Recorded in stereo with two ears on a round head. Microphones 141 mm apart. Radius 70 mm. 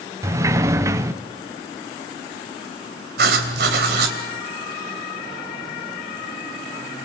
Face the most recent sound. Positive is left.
turn(degrees=-70)  # may be behind; listen again after turning